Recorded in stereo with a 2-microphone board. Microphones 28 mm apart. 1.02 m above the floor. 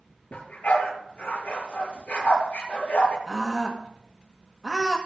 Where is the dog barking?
50° left (ahead or behind), 6 m.